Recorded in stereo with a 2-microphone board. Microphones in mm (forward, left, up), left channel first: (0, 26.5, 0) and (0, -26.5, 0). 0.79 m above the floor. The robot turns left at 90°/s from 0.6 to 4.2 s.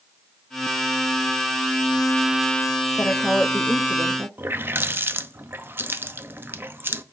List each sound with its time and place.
3.0 s a woman speaking: 55° left, 0.9 m; by 4.3 s 55° right, 0.9 m
4.4 s a running tap: 45° right (ahead or behind), 0.6 m